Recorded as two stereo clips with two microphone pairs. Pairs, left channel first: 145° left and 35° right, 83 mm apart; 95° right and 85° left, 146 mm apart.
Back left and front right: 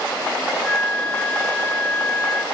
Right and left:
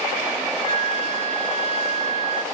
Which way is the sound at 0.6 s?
70° left.